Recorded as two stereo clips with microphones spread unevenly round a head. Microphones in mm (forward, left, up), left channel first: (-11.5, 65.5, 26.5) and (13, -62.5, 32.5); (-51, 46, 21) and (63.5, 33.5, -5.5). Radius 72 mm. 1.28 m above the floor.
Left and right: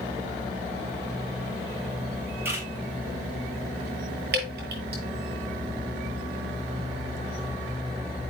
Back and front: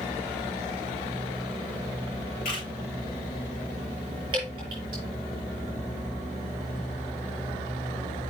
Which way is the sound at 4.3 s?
70° right.